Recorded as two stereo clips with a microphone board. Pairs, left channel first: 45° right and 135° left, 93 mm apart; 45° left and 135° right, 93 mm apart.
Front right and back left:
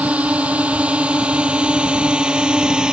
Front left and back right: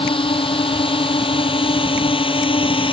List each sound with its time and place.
0.0 s a drone: 60° left; by 2.9 s 55° left